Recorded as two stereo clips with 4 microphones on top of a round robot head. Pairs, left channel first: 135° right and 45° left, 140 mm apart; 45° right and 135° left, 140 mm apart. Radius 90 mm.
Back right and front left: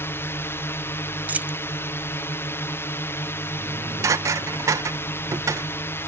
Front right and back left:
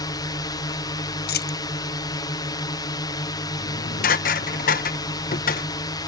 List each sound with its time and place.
0.0 s a drone: 80° right
1.3 s a dropped coin: 35° right
3.6 s dishes clattering: 25° right